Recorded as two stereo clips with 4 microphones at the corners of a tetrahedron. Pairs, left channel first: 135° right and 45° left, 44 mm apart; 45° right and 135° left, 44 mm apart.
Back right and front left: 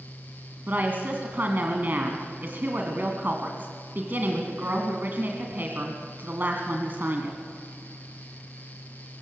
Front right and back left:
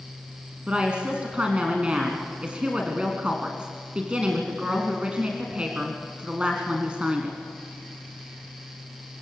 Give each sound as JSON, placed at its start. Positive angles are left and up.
{"t": 0.7, "sound": "a woman speaking", "azimuth_deg": 75, "distance_m": 2.5}